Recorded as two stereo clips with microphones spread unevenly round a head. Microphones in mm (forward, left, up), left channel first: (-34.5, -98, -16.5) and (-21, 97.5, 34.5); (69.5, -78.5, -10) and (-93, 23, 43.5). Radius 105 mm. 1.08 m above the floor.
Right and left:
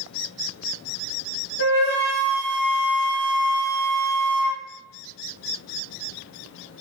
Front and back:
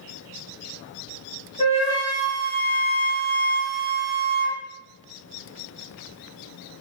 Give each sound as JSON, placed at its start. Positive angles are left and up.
{"t": 1.6, "sound": "a flute", "azimuth_deg": -90, "distance_m": 1.6}